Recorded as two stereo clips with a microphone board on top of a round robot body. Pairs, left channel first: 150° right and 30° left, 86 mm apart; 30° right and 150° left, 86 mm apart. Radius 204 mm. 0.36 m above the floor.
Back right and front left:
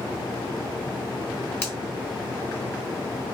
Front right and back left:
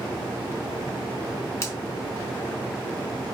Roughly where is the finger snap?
Right.